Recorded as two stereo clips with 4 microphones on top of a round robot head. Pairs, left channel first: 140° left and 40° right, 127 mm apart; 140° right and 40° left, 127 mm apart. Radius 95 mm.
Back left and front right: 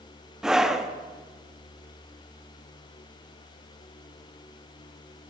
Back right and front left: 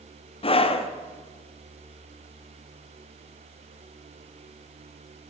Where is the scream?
125° right, 1.3 m.